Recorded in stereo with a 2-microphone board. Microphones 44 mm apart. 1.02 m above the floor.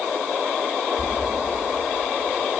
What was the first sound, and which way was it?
Knocking, 20° right (ahead or behind).